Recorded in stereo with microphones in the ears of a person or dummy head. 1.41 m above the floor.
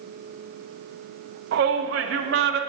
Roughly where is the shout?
Right.